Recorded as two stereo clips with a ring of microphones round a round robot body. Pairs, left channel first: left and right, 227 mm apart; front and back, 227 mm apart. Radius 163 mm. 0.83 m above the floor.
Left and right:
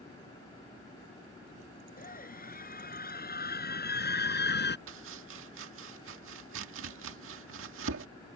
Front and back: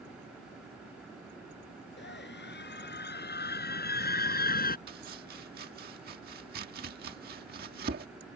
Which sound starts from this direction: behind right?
Chopping, at 4.9 s.